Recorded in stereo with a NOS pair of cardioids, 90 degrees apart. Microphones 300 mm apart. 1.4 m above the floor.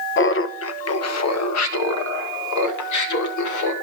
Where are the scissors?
No scissors in this recording.